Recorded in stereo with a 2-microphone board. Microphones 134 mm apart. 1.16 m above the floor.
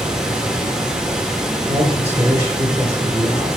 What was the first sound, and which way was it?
Running water, 5° right (ahead or behind).